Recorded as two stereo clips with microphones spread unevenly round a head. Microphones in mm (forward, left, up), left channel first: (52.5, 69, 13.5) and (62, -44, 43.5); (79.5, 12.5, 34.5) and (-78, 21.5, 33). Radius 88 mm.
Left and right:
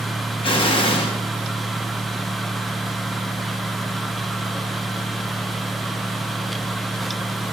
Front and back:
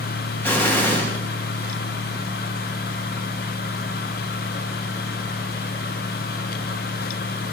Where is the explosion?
75° left, 1.7 m.